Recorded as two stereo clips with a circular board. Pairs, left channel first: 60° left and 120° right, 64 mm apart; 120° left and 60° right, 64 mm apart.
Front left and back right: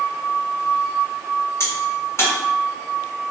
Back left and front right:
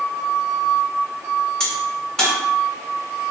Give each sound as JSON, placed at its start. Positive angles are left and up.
{"t": 1.6, "sound": "a crack", "azimuth_deg": 45, "distance_m": 1.6}